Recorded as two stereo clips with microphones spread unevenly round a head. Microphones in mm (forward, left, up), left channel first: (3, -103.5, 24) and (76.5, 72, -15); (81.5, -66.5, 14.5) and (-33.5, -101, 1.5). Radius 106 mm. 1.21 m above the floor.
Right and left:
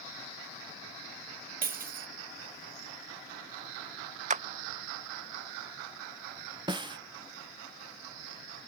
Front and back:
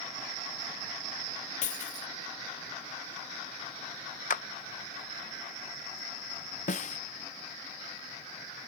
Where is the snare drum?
Straight ahead.